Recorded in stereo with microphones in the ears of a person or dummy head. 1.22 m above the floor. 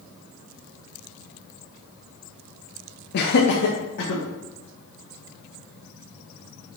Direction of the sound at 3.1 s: 55° left (ahead or behind).